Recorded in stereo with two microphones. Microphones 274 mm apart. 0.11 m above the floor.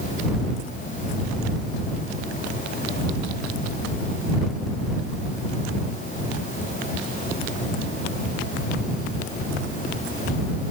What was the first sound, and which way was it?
Only background noise.